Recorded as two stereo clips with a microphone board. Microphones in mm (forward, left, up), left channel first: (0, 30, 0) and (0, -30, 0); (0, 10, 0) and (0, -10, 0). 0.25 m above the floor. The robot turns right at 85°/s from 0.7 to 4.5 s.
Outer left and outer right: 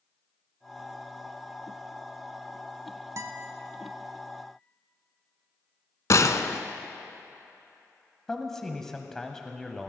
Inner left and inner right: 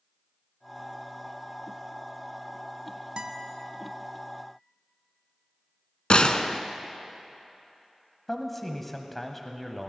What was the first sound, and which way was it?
A guitar, 55° right (ahead or behind).